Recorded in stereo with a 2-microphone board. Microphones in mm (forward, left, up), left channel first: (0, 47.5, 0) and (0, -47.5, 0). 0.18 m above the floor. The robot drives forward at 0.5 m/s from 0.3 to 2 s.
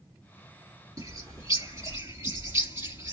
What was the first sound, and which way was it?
A bird, 40° right (ahead or behind).